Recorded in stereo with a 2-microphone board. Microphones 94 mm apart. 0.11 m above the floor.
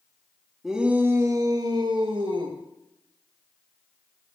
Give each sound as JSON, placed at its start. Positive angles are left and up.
{"t": 0.6, "sound": "a shout", "side_deg": -5, "distance_m": 1.7}